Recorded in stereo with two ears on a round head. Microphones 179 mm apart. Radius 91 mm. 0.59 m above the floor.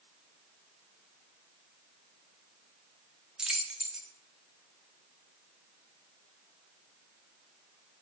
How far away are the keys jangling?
About 0.6 m.